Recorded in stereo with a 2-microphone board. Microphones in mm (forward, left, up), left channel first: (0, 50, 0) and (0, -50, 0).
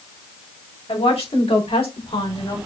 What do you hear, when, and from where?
0.9 s a woman speaking: 80° left, 4 m; by 2.6 s 55° left (ahead or behind), 2.5 m